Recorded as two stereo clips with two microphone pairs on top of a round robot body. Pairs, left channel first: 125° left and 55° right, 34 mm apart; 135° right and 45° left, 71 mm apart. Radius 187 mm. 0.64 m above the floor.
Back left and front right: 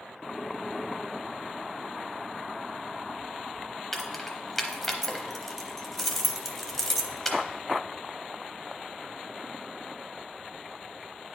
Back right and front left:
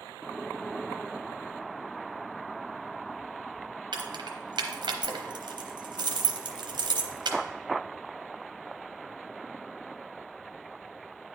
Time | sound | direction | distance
3.9 | keys jangling | 45° left | 0.9 m